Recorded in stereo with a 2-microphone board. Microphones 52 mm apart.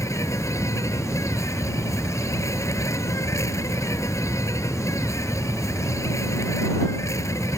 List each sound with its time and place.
0.0 s an insect: 80° left